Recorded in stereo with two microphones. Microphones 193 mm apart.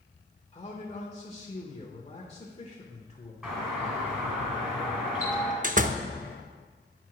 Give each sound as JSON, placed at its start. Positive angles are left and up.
{"t": 0.5, "sound": "a man speaking", "side_deg": 30, "distance_m": 1.0}
{"t": 3.4, "sound": "a doorbell", "side_deg": -5, "distance_m": 2.5}
{"t": 5.6, "sound": "a door slam", "side_deg": -40, "distance_m": 0.5}